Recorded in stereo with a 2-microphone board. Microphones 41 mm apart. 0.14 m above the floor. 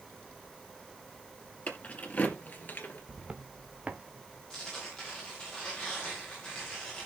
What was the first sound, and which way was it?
Keys jangling, 30° left (ahead or behind).